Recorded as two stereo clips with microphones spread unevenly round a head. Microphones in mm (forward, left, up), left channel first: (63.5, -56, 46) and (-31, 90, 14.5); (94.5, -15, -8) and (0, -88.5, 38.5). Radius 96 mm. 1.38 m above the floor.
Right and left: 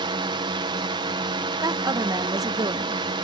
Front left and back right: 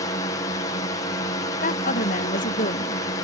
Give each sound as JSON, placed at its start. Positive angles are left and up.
{"t": 0.0, "sound": "a drone", "azimuth_deg": 75}
{"t": 1.6, "sound": "a woman speaking", "azimuth_deg": 55}